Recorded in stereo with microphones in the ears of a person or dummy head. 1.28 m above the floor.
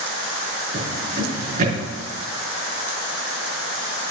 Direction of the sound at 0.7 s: 45° right (ahead or behind).